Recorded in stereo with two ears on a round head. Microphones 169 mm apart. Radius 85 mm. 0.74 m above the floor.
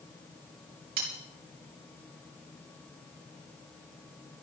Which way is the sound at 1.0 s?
50° right (ahead or behind).